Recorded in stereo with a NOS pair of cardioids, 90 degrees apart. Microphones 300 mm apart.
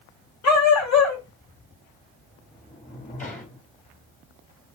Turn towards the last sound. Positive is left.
turn(degrees=25)